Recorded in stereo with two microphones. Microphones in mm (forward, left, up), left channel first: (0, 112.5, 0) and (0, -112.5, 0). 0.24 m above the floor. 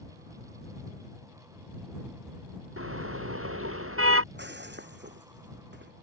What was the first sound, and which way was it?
A car horn, 75° right (ahead or behind).